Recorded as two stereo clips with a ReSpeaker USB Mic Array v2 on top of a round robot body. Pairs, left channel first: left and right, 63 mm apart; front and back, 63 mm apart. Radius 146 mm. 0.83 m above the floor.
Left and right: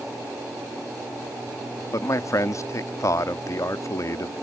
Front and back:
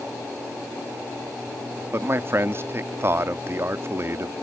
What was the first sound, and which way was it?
A man speaking, 130° left.